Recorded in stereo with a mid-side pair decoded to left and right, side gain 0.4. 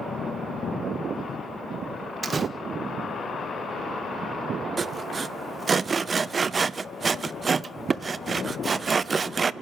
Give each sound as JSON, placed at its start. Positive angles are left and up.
{"t": 2.2, "sound": "a door slam", "azimuth_deg": -40, "distance_m": 1.4}
{"t": 4.8, "sound": "sawing", "azimuth_deg": -40, "distance_m": 0.7}